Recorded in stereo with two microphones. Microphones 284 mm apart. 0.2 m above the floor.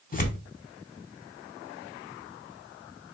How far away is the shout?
I don't hear a shout.